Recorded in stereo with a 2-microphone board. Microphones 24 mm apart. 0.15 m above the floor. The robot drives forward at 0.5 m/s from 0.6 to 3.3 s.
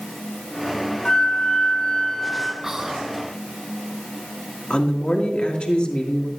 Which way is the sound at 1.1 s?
25° left (ahead or behind).